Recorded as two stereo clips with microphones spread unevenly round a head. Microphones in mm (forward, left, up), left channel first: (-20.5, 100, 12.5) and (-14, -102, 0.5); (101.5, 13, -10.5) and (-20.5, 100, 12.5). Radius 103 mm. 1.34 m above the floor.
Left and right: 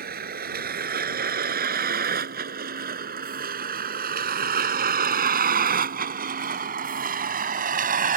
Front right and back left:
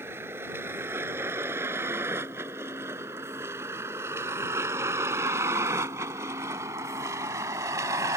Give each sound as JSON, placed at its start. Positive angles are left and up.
{"t": 0.0, "sound": "a vehicle", "azimuth_deg": -135}